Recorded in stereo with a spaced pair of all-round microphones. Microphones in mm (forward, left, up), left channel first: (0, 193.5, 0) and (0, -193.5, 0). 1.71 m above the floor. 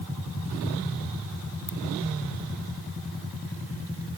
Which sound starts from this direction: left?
A ringtone, at 1.7 s.